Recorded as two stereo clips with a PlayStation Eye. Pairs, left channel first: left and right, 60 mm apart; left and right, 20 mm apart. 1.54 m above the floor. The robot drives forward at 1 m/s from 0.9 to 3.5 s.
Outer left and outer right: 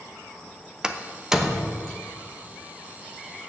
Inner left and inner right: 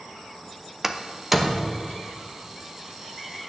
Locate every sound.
0.8 s a door slam: 15° right (ahead or behind), 0.7 m; by 1.9 s 5° right (ahead or behind), 1.4 m